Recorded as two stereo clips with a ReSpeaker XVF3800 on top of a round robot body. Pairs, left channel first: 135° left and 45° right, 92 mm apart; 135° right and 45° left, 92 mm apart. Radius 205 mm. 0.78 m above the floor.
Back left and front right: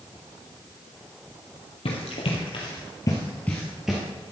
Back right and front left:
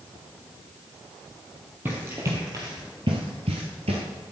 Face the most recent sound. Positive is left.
turn(degrees=35)